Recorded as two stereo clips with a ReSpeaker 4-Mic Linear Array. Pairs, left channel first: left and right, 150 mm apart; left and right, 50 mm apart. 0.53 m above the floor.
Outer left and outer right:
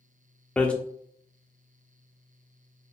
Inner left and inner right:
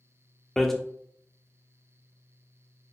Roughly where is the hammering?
Centre.